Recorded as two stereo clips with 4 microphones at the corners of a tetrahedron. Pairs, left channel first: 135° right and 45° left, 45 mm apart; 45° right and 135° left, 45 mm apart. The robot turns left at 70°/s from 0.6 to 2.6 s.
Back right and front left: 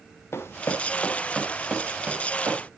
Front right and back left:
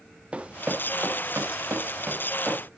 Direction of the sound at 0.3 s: 160° right.